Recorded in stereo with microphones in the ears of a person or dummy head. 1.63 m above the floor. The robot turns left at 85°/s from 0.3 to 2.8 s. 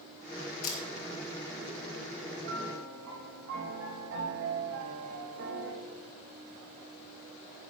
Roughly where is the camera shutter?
Left.